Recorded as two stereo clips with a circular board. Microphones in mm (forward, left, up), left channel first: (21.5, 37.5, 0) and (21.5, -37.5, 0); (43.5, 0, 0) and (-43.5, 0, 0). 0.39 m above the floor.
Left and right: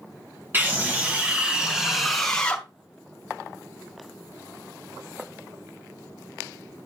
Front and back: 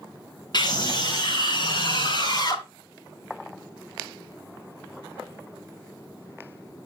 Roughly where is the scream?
Ahead right.